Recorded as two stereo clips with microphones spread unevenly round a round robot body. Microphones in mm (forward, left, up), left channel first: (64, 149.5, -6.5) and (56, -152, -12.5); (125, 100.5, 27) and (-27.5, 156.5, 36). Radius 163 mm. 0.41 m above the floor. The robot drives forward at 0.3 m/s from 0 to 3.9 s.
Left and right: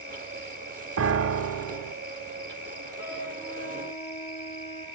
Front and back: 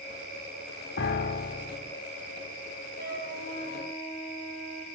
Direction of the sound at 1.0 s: 45° right.